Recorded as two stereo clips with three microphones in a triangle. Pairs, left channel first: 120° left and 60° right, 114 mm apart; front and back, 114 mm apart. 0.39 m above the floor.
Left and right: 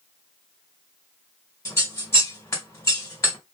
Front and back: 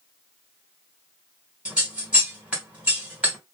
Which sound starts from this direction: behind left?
Scissors, at 1.6 s.